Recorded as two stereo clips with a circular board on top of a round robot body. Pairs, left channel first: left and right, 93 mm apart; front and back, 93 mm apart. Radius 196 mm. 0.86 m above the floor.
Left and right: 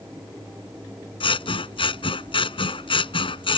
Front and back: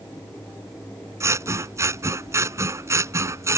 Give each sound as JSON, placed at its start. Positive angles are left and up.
{"t": 1.2, "sound": "scissors", "azimuth_deg": 120}